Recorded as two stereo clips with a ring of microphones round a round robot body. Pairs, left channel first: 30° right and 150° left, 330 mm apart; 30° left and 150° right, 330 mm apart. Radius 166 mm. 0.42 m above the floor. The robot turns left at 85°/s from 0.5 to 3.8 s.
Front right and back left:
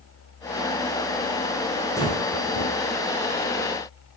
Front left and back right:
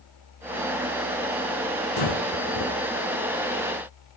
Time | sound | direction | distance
2.0 | breathing | 55° left | 5.5 m